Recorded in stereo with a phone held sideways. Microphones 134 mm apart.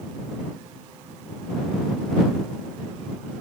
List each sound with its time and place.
Only background noise.